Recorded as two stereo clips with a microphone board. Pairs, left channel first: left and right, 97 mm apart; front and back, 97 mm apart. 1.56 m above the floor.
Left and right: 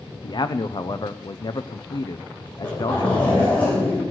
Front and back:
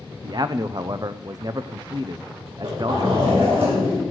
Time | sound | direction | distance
0.2 | a man speaking | 130° left | 0.6 m
2.5 | a zipper | 160° left | 7.5 m